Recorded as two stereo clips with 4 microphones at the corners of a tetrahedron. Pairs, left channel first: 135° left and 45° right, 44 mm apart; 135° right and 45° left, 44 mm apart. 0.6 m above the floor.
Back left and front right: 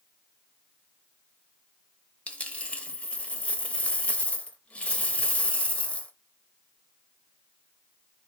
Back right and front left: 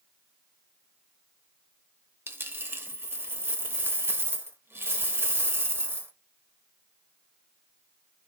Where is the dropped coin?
75° left, 0.7 m.